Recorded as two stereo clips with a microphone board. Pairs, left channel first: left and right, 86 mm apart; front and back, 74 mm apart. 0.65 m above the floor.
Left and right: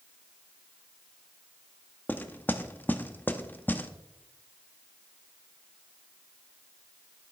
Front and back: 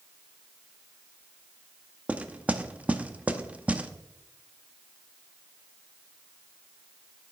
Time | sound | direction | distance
2.1 | knocking | 130° left | 0.7 m